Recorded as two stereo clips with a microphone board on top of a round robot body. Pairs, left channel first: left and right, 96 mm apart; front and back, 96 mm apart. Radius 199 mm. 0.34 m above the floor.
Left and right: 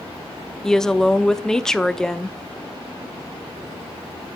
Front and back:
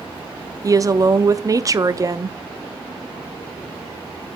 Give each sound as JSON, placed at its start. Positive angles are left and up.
{"t": 0.6, "sound": "a woman speaking", "azimuth_deg": 170, "distance_m": 1.0}